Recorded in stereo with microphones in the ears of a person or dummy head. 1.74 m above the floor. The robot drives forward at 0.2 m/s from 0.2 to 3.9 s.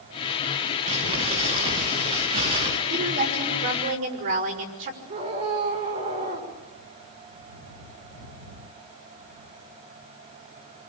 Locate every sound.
0.9 s crumpling: 30° right (ahead or behind), 4.5 m; by 2.8 s 25° right (ahead or behind), 5 m
2.9 s a woman speaking: 45° right (ahead or behind), 5 m
5.1 s a scream: 30° right (ahead or behind), 6.5 m